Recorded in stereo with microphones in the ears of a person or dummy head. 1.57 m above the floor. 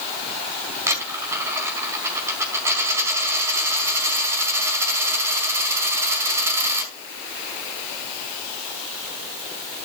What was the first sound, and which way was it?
A dropped coin, 15° right (ahead or behind).